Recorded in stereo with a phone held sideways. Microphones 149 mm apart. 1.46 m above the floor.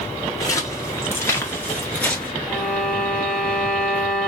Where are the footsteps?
20° left (ahead or behind), 1.6 m; by 2.3 s 5° left (ahead or behind), 1.6 m.